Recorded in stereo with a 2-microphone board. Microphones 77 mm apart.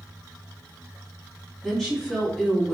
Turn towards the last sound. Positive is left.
turn(degrees=5)  # may be behind; listen again after turning